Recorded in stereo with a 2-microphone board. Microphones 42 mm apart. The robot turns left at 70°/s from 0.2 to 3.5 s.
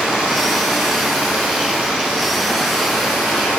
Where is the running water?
25° right, 2.0 m; by 3.6 s 105° left, 2.0 m.